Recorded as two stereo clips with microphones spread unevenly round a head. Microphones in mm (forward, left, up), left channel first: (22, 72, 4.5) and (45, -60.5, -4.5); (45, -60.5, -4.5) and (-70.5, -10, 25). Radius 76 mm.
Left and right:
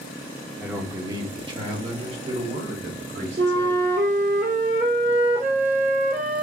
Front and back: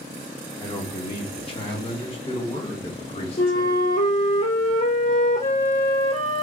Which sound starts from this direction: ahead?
A man speaking, at 0.6 s.